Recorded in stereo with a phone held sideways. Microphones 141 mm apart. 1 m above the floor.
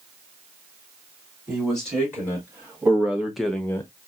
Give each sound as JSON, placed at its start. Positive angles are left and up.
{"t": 1.5, "sound": "a man speaking", "side_deg": -15, "distance_m": 3.0}